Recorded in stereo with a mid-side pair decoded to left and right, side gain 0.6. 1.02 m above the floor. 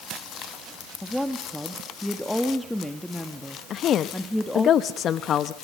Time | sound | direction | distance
1.0 | a woman speaking | 5° left | 1.7 m
3.7 | a woman speaking | 50° left | 0.8 m